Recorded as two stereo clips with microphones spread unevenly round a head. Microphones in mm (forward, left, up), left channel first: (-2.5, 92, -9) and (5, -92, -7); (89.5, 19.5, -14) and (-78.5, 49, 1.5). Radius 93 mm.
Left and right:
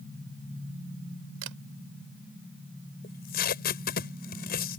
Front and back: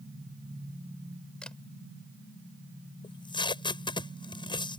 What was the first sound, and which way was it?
A camera shutter, 95° right.